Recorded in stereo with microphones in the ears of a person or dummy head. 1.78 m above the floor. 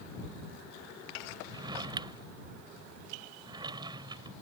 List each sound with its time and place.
1.5 s a drawer: 25° right (ahead or behind)